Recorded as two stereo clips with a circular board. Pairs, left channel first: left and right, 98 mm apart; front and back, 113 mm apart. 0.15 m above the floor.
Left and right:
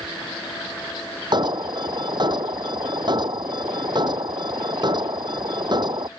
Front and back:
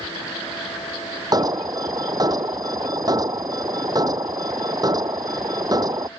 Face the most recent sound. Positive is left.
turn(degrees=-130)